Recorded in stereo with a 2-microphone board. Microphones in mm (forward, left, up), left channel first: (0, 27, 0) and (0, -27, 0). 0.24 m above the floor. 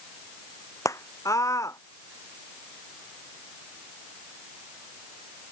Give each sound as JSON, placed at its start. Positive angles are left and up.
{"t": 0.8, "sound": "a scream", "side_deg": 70}